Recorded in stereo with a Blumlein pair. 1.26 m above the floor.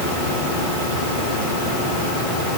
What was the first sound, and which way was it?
Only background noise.